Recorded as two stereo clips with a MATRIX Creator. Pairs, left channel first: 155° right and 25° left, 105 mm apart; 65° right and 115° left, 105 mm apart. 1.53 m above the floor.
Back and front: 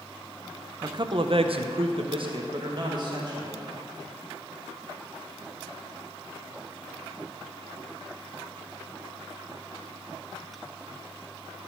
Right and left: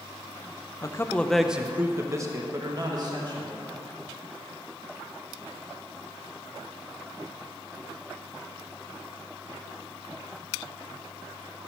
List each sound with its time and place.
0.8 s a man speaking: 20° right, 0.7 m; by 3.6 s 70° left, 2 m